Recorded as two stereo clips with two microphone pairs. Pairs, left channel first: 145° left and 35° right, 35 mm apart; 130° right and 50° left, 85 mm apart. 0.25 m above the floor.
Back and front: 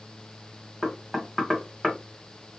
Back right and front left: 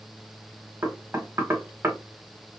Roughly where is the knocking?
Ahead left.